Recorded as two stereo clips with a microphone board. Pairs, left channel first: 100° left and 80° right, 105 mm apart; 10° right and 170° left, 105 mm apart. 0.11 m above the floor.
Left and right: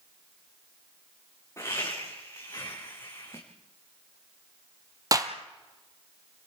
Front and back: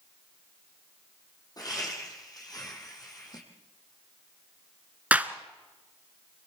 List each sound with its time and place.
1.6 s laughter: 40° left, 5 m
3.3 s a whoosh: 5° left, 6 m
5.1 s a clap: 120° right, 1.4 m